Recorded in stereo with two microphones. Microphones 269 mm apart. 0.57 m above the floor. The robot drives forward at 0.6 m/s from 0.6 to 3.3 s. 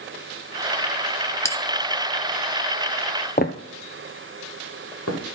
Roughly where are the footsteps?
Left.